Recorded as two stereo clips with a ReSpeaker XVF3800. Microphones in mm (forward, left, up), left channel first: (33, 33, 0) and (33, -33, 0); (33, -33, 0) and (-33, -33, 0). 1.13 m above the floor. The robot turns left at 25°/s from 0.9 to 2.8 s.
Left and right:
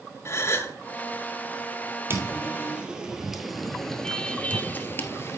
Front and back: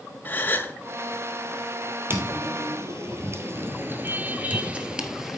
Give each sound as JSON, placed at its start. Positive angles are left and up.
{"t": 0.2, "sound": "a gasp", "azimuth_deg": 55, "distance_m": 1.4}
{"t": 2.1, "sound": "footsteps", "azimuth_deg": -135, "distance_m": 2.0}